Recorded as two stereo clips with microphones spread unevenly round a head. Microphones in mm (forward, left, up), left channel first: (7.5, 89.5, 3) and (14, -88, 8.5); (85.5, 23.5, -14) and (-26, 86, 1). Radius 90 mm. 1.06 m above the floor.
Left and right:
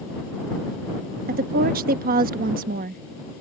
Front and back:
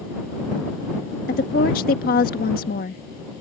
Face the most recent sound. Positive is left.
turn(degrees=-45)